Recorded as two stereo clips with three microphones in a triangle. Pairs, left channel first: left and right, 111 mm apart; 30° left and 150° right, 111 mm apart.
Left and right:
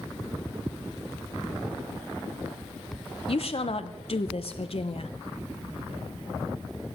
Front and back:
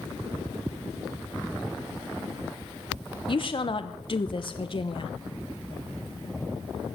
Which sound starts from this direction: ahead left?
A woman speaking, at 3.3 s.